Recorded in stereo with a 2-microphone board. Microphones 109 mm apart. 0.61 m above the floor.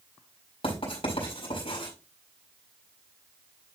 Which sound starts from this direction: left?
Writing, at 0.6 s.